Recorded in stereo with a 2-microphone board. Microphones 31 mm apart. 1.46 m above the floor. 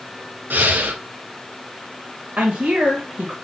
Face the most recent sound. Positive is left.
turn(degrees=-60)  # may be behind; listen again after turning